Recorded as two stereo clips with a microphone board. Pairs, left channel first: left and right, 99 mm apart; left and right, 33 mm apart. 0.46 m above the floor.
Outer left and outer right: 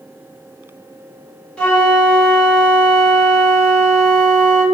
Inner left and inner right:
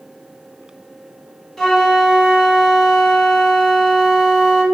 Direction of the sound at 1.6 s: 10° left (ahead or behind).